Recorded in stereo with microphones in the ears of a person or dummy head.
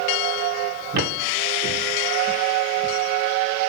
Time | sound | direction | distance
0.9 | footsteps | 60° right (ahead or behind) | 4.5 m